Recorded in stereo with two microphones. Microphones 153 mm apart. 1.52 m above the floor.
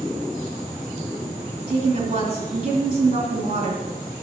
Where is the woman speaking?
45° right (ahead or behind), 3 m.